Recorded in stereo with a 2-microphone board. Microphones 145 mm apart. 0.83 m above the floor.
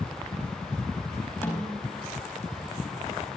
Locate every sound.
1.4 s a snare drum: 15° left (ahead or behind), 4.5 m